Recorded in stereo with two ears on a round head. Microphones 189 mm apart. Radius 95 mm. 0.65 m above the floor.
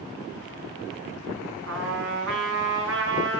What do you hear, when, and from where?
1.7 s a trumpet: 65° right (ahead or behind), 4.5 m